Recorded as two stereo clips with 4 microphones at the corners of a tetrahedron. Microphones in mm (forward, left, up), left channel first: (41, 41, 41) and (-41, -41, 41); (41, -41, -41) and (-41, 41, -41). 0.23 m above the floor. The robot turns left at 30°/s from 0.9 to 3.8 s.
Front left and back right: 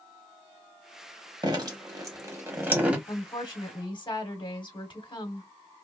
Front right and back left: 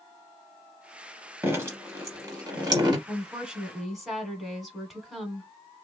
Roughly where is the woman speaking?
Left.